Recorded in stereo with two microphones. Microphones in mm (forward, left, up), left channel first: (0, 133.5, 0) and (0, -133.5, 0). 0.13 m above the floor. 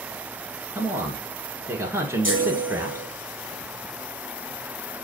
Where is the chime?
45° left (ahead or behind), 4 m.